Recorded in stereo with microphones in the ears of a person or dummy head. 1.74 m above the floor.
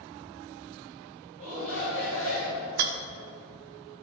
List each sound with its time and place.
1.4 s a shout: 45° right (ahead or behind), 3.5 m
2.8 s a rattle: 50° right (ahead or behind), 0.7 m